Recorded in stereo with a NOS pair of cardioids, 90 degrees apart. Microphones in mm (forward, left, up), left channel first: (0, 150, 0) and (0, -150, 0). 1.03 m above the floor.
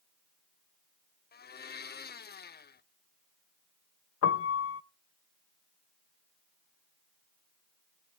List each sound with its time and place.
1.3 s a blender: 35° left, 0.9 m
4.2 s a piano: 50° left, 0.8 m